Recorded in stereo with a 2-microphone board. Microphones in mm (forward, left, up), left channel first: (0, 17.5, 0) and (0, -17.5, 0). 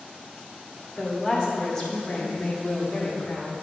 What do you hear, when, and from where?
1.0 s a woman speaking: centre (ahead or behind), 2.5 m; by 3.5 s 40° left (ahead or behind), 1.7 m